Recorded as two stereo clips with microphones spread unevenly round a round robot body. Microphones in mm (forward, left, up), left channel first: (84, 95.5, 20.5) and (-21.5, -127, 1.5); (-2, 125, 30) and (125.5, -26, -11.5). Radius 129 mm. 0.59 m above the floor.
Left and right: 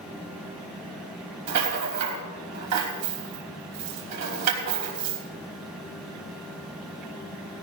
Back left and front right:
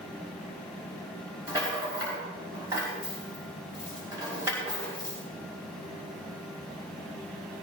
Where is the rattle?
125° right, 3 m.